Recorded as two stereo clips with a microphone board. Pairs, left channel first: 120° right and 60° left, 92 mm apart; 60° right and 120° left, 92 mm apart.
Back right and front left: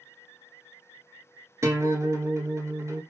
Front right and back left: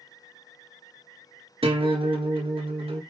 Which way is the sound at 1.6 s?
115° left.